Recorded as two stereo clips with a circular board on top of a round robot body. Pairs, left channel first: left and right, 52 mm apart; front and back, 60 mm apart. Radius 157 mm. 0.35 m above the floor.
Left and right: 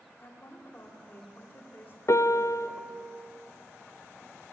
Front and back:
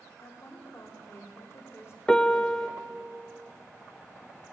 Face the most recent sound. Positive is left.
turn(degrees=80)